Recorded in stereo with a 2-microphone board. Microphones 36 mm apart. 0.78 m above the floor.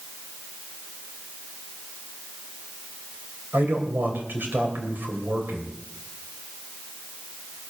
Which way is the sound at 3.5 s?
65° right (ahead or behind).